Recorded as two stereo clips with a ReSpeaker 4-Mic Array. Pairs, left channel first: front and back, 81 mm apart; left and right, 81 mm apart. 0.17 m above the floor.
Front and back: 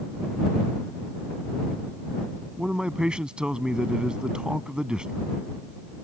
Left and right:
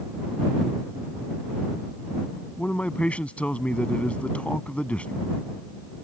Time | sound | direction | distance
2.6 | a man speaking | 125° left | ?